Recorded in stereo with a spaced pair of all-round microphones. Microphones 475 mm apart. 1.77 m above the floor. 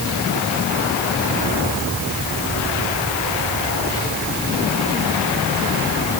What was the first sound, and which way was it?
Only background noise.